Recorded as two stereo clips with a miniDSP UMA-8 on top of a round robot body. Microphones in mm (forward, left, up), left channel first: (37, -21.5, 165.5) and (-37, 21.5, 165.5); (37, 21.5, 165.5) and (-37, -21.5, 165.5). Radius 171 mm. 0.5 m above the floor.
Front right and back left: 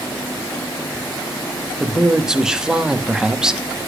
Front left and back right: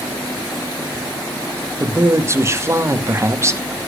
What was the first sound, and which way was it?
A man speaking, 135° right.